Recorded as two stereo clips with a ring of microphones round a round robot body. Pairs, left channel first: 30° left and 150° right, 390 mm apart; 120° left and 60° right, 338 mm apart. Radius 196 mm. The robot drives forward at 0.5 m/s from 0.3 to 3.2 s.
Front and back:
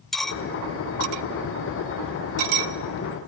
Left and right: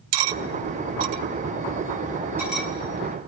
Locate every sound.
0.1 s cutlery clinking: 60° right, 0.6 m; by 2.7 s 150° right, 1.1 m